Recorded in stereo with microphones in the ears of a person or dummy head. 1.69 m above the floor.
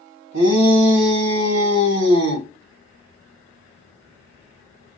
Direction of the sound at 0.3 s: 75° right (ahead or behind).